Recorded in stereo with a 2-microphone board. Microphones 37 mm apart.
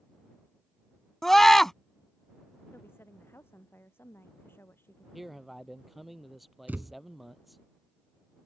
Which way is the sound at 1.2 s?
10° left (ahead or behind).